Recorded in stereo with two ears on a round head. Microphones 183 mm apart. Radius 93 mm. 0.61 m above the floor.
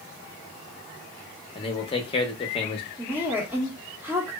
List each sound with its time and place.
1.6 s a man speaking: 25° left (ahead or behind), 0.7 m
3.0 s a woman speaking: 10° right (ahead or behind), 0.9 m